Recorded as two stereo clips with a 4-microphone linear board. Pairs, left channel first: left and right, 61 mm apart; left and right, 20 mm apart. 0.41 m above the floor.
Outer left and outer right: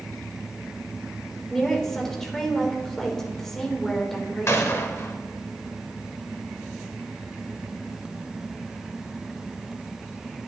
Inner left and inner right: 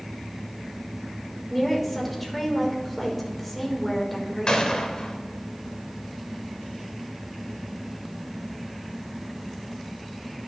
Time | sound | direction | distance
1.5 | a woman speaking | 10° left (ahead or behind) | 1.5 m
4.5 | a gunshot | 50° left (ahead or behind) | 0.9 m